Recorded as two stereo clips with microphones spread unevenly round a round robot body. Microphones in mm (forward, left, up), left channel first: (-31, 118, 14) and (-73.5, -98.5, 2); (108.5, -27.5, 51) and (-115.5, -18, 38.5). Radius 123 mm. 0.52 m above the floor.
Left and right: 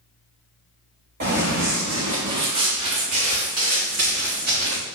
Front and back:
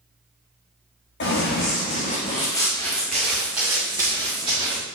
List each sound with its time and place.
1.2 s running footsteps: 40° right, 2.5 m; by 4.8 s 115° right, 4 m